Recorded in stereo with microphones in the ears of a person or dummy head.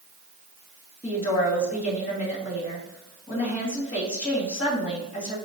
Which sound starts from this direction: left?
A woman speaking, at 1.0 s.